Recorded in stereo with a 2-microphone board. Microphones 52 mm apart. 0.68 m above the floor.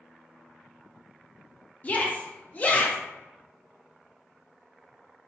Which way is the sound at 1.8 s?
30° left (ahead or behind).